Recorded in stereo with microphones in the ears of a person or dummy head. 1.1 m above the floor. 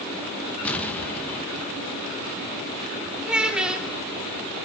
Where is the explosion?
10° left (ahead or behind), 1.4 m.